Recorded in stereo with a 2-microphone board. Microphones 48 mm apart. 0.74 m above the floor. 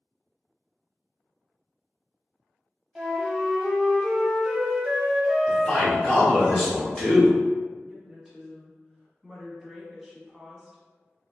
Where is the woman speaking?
Centre (ahead or behind), 1.0 m.